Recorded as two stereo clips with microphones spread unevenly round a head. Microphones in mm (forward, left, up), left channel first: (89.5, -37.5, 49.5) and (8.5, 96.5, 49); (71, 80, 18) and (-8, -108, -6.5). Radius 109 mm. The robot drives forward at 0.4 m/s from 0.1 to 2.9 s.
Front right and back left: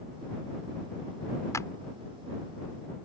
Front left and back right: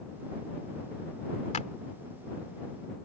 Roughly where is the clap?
Ahead.